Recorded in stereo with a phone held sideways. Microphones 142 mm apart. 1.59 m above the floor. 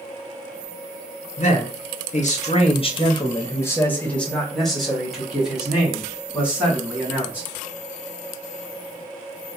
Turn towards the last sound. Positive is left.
turn(degrees=-15)  # may be behind; listen again after turning